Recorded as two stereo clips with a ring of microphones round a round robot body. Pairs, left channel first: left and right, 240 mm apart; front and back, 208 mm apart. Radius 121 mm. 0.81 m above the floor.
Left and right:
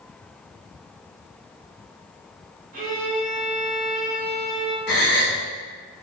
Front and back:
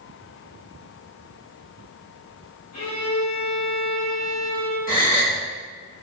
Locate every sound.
2.7 s a violin: 30° right, 1.0 m
4.9 s a gasp: 45° left, 1.3 m